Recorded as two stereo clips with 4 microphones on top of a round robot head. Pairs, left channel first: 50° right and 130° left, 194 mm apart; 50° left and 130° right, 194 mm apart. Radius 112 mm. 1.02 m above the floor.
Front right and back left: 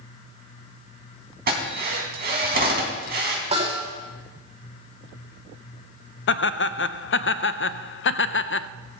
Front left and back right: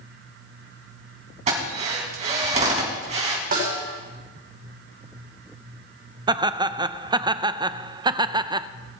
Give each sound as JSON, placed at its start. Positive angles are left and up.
{"t": 1.5, "sound": "a drill", "azimuth_deg": 175, "distance_m": 4.0}
{"t": 3.5, "sound": "a snare drum", "azimuth_deg": -175, "distance_m": 7.5}
{"t": 6.3, "sound": "laughter", "azimuth_deg": -60, "distance_m": 0.6}